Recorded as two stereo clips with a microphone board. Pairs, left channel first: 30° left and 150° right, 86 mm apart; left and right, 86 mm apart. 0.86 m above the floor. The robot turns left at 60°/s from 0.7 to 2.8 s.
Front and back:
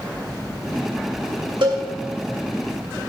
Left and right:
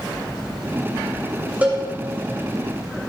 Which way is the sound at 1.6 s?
160° right.